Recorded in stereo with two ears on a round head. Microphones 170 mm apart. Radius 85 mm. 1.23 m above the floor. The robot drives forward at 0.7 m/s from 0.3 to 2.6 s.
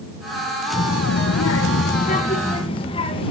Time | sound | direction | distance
0.7 | a child speaking | 50° left (ahead or behind) | 0.6 m